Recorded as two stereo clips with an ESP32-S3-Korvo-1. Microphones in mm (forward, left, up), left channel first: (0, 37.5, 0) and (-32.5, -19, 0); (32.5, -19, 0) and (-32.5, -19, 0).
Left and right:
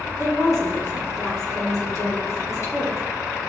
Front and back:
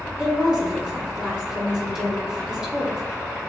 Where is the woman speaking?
105° left, 4 m.